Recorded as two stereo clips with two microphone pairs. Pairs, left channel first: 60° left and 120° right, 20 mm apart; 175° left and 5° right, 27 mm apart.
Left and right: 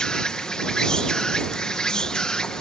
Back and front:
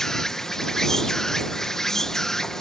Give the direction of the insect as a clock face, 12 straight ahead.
9 o'clock.